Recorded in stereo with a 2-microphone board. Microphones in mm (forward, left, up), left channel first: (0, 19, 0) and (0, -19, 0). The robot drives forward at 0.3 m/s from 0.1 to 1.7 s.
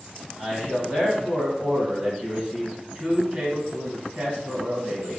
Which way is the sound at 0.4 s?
30° right (ahead or behind).